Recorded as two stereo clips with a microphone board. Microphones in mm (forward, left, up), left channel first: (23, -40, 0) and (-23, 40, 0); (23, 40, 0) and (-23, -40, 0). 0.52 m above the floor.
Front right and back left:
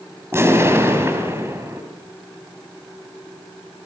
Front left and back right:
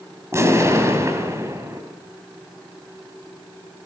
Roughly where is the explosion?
Behind.